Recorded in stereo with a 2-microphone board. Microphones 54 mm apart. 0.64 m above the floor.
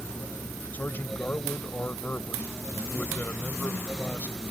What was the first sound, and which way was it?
A man speaking, 35° left (ahead or behind).